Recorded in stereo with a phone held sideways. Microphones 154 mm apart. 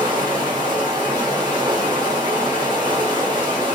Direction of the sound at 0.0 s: 30° right (ahead or behind).